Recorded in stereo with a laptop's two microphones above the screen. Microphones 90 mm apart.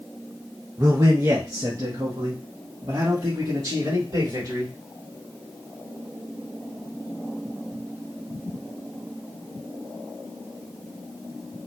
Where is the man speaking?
30° right (ahead or behind), 0.8 m; by 4.7 s 40° right (ahead or behind), 3 m.